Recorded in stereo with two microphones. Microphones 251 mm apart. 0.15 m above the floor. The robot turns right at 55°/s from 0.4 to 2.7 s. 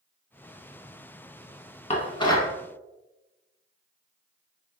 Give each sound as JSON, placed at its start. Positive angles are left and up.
{"t": 1.9, "sound": "dishes clattering", "side_deg": 25, "distance_m": 0.8}